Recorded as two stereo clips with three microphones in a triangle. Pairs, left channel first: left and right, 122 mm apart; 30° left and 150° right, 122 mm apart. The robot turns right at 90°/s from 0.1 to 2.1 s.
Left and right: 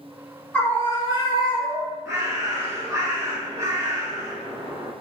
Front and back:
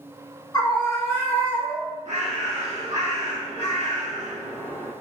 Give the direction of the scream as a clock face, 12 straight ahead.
11 o'clock.